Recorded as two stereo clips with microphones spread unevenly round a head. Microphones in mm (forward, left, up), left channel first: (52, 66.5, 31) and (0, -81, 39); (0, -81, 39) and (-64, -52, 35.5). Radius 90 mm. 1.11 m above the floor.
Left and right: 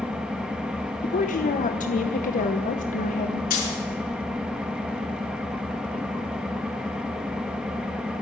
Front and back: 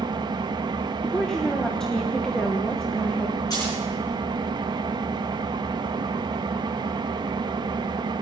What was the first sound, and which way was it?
An engine running, 165° left.